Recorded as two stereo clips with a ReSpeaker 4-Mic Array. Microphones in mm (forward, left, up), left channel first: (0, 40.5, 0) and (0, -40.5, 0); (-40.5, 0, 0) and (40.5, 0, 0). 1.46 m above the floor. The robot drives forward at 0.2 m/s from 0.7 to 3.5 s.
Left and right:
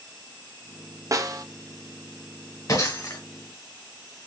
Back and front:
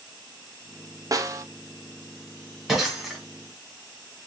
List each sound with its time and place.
1.1 s a snare drum: 45° right, 0.5 m; by 1.4 s 50° right, 0.5 m
2.7 s breaking glass: 85° left, 1.7 m; by 3.2 s 90° left, 1.7 m